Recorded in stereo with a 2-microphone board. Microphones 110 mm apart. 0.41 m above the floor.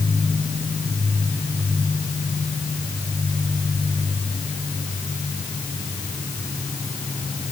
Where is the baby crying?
I don't hear a baby crying.